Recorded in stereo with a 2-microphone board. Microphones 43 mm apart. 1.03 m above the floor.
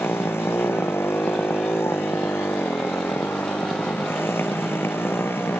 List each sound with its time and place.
0.0 s a motorcycle: 70° left (ahead or behind); by 5.6 s 65° left (ahead or behind)